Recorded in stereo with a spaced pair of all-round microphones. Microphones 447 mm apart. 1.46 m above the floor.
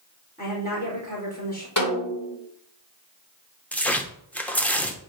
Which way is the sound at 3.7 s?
5° left (ahead or behind).